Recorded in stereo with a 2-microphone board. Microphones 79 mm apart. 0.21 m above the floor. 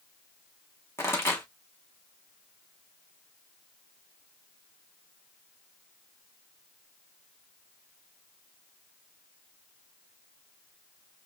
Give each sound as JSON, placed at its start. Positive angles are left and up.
{"t": 1.0, "sound": "a pop", "side_deg": 30, "distance_m": 2.5}